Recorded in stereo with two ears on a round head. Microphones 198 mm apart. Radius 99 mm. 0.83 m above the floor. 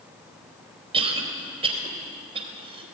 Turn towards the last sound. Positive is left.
turn(degrees=-30)  # may be behind; listen again after turning